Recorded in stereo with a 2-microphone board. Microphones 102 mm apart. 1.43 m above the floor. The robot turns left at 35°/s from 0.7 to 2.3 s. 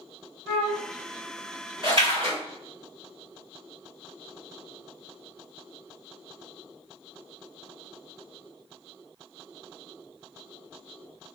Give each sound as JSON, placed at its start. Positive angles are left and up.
{"t": 0.5, "sound": "a flute", "side_deg": 10, "distance_m": 1.3}
{"t": 1.8, "sound": "a splash", "side_deg": -50, "distance_m": 1.5}